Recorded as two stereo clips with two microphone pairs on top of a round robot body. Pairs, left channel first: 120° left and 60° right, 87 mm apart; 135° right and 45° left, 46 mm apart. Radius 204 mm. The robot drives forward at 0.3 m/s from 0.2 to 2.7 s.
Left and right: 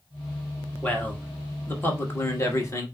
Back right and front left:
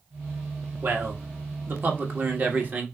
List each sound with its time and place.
0.8 s a man speaking: 55° left, 1.7 m; by 2.9 s 80° left, 1.5 m